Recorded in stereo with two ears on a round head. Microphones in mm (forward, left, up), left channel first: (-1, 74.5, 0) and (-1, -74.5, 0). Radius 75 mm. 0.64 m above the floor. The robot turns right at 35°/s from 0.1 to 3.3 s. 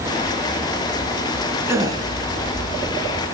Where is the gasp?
15° right (ahead or behind), 2.5 m; by 2.0 s 25° right (ahead or behind), 2.5 m.